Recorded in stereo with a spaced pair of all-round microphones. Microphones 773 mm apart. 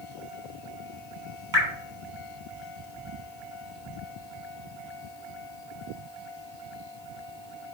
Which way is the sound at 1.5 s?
30° right (ahead or behind).